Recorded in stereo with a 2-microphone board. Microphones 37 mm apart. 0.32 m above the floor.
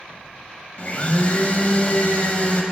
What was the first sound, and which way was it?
A blender, 40° left (ahead or behind).